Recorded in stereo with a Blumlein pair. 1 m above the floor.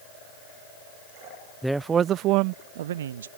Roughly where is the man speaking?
Ahead.